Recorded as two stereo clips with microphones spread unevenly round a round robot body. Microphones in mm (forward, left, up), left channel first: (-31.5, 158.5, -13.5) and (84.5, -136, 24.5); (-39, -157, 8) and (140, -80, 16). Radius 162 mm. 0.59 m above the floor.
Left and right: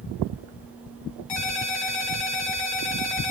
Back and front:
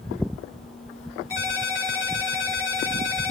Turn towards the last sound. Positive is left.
turn(degrees=120)